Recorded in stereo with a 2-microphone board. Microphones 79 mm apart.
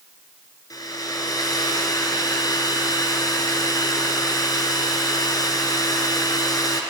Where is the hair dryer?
55° left (ahead or behind), 1.2 m.